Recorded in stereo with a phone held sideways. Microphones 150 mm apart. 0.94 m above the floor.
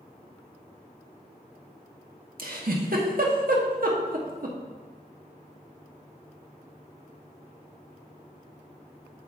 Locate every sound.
2.4 s a giggle: 70° right (ahead or behind), 1.1 m